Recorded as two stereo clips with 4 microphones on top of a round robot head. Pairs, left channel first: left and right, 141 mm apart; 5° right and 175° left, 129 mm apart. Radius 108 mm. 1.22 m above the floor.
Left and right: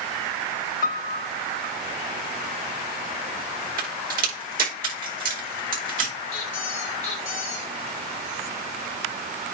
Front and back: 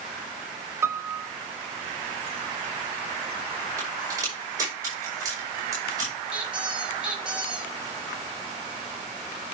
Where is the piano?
105° left, 0.7 m.